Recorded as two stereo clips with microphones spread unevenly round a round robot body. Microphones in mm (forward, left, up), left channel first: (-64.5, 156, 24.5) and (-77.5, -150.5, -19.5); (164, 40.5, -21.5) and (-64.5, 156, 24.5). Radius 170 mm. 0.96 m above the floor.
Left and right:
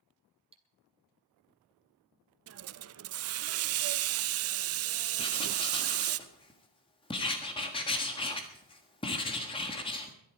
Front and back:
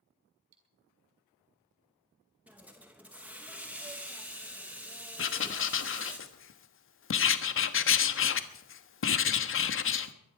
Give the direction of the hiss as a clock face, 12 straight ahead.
4 o'clock.